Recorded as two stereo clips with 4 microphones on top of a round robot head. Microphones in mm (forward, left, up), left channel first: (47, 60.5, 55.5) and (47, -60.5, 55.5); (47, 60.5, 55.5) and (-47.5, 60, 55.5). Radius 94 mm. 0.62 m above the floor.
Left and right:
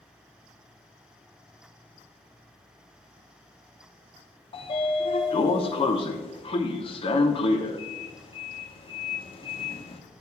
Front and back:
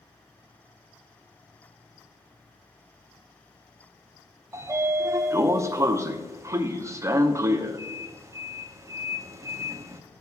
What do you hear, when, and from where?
4.5 s a sliding door: 125° left, 0.7 m